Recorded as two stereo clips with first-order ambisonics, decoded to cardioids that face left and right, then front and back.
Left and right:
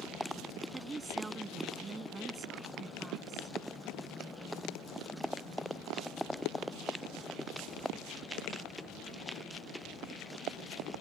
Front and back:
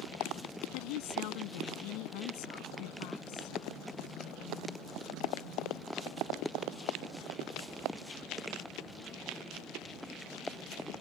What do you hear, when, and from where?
0.7 s a woman speaking: 15° right